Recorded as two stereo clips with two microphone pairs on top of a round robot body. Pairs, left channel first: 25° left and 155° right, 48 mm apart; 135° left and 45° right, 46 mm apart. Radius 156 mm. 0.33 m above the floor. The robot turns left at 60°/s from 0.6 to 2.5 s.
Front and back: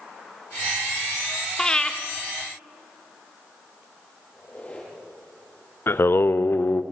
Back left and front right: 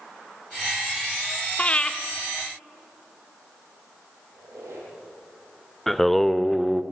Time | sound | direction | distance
1.6 | breathing | 95° left | 1.7 m
4.3 | a squeak | 40° right | 9.5 m
5.9 | singing | 50° left | 0.8 m